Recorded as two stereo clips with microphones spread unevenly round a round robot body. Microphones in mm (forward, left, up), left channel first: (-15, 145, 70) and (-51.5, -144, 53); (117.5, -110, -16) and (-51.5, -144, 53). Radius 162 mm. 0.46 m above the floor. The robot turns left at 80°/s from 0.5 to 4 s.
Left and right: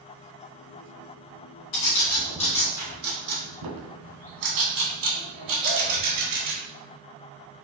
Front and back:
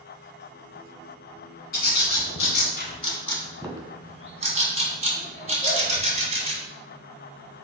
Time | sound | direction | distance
1.7 | a bird | 65° left | 1.7 m